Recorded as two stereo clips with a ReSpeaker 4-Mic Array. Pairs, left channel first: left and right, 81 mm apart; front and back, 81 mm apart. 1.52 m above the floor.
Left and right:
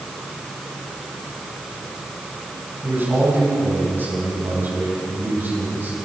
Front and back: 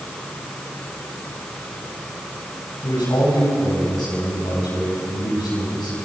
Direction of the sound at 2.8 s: 25° right.